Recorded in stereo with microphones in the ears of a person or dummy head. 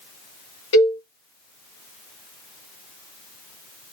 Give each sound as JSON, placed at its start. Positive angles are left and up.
{"t": 0.7, "sound": "a cowbell", "side_deg": 30, "distance_m": 1.6}